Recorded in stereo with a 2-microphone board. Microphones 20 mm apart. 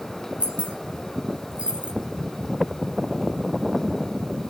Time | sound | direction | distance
0.4 | keys jangling | 60° right (ahead or behind) | 4 m